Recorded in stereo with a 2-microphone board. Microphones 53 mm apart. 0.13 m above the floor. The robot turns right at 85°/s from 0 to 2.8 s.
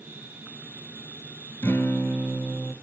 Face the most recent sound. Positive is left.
turn(degrees=-170)